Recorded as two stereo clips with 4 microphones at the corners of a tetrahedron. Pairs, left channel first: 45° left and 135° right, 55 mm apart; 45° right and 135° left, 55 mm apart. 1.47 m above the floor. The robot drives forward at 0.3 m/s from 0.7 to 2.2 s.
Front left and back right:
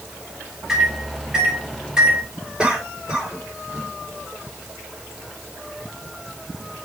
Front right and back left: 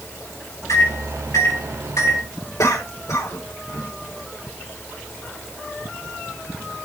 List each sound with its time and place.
0.7 s a microwave: 55° right, 3.5 m; by 2.2 s 60° right, 3.5 m
2.6 s a cough: 60° right, 4.5 m